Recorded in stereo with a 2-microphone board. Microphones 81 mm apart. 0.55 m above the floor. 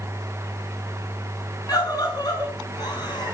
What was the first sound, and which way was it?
A scream, 50° left (ahead or behind).